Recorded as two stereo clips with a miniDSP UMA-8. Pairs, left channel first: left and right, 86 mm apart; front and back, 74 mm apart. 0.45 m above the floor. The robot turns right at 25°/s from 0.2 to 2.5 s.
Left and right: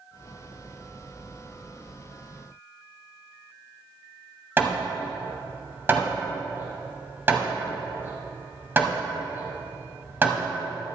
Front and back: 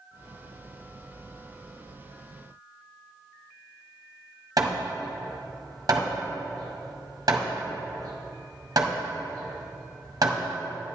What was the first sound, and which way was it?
Hammering, 155° right.